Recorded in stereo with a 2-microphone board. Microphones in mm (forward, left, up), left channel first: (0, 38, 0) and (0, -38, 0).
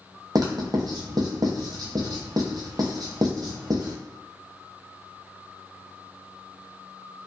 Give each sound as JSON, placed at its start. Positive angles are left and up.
{"t": 0.3, "sound": "writing", "side_deg": -60, "distance_m": 0.8}